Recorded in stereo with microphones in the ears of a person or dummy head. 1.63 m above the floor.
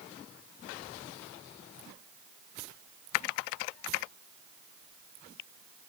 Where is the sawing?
I don't hear sawing.